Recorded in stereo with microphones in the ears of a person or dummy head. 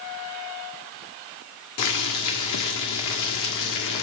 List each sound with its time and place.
1.8 s boiling: 65° left (ahead or behind), 1.7 m